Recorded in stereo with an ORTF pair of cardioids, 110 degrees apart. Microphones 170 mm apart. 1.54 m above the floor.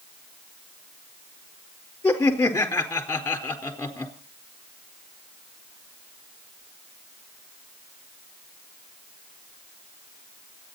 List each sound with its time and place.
2.0 s laughter: 10° left, 4 m